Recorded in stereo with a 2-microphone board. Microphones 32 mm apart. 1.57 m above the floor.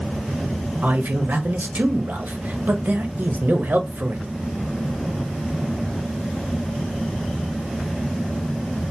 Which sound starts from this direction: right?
A man speaking, at 0.8 s.